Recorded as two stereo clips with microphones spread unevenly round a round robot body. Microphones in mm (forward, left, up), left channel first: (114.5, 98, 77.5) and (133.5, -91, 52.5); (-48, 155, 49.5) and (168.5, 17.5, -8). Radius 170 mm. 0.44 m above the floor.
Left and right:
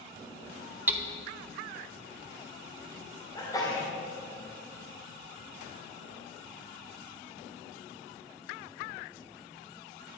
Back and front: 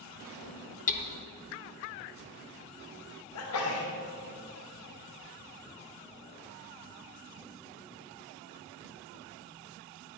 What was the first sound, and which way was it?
Hammering, 145° right.